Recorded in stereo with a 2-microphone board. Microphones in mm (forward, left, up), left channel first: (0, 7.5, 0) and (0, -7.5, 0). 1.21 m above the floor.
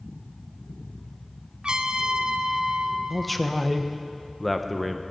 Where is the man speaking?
Centre (ahead or behind), 1.0 m.